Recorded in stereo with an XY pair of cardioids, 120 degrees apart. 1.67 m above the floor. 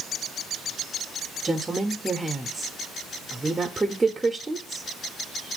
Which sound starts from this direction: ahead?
A woman speaking, at 1.4 s.